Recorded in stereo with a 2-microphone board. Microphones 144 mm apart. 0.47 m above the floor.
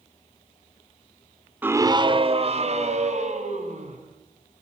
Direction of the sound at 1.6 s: 10° right (ahead or behind).